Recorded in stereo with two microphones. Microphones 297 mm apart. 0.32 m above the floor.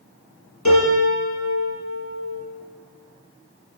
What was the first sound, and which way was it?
A piano, 65° left (ahead or behind).